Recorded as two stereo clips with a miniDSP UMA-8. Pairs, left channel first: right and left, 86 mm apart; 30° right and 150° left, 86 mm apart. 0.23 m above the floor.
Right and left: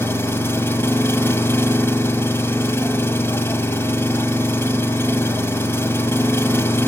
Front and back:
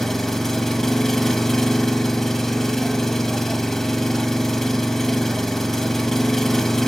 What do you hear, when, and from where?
0.0 s an engine running: 110° right, 0.9 m